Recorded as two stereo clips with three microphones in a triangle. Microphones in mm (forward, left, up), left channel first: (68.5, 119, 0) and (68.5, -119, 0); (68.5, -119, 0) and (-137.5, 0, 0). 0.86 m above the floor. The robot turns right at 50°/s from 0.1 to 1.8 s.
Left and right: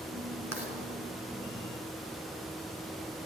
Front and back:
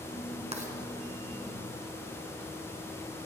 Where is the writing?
90° left, 2 m; by 0.7 s 100° left, 2 m.